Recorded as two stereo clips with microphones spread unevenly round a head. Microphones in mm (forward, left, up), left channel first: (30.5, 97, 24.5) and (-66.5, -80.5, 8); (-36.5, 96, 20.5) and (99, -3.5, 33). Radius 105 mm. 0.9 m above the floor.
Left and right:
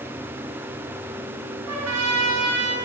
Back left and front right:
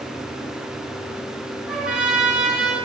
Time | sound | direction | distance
1.7 | a trumpet | 120° right | 10 m